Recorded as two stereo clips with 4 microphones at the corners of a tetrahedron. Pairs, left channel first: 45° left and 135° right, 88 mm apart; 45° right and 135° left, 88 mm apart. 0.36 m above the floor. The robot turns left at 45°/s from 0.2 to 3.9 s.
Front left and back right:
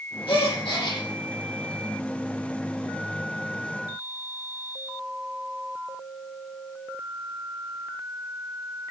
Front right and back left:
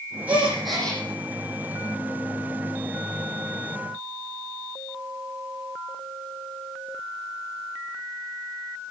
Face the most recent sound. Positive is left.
turn(degrees=-100)